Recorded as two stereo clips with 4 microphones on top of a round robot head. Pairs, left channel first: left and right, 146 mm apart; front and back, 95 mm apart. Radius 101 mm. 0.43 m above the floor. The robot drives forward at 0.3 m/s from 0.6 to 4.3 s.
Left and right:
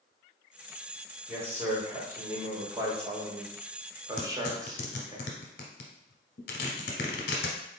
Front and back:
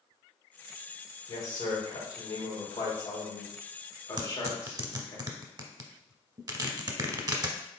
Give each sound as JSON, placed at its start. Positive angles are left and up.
{"t": 1.3, "sound": "a man speaking", "azimuth_deg": -15, "distance_m": 1.9}
{"t": 4.2, "sound": "tearing paper", "azimuth_deg": 130, "distance_m": 0.7}